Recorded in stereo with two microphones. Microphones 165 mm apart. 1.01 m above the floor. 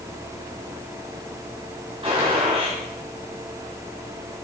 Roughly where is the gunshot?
Right.